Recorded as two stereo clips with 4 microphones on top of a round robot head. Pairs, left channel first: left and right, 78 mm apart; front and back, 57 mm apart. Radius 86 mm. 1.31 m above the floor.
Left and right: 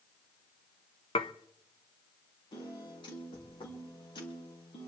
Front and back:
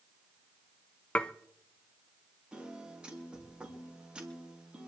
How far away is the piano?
About 3.5 m.